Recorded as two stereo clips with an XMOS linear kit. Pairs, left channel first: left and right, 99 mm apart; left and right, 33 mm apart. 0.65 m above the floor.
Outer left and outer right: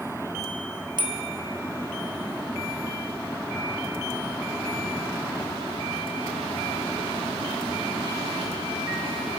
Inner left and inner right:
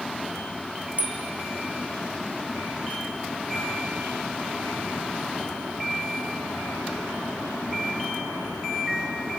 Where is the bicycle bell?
50° right (ahead or behind), 3.5 m.